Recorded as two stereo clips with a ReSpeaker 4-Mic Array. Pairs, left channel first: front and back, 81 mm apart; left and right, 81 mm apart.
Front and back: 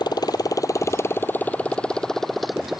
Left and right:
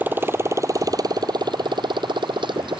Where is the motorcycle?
25° right; by 2.8 s 95° right.